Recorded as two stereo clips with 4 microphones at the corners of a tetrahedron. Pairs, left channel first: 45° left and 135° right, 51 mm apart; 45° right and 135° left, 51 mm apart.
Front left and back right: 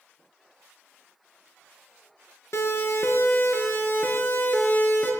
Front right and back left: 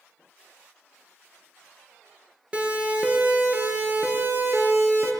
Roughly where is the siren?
Ahead left.